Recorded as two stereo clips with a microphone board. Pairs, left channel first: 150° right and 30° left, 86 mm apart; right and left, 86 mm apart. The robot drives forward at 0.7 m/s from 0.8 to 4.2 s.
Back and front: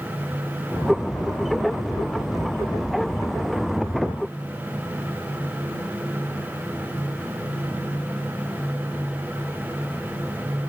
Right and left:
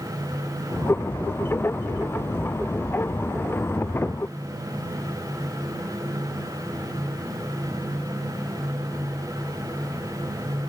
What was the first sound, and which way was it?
Only background noise.